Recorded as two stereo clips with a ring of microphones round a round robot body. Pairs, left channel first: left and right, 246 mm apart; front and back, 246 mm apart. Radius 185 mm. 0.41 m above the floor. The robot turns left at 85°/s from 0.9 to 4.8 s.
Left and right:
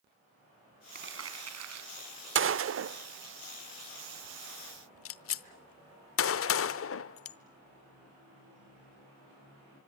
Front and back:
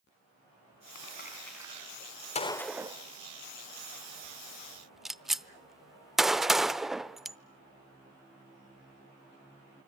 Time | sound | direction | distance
0.9 | crumpling | 40° right | 4.5 m
2.4 | a gunshot | 60° right | 0.9 m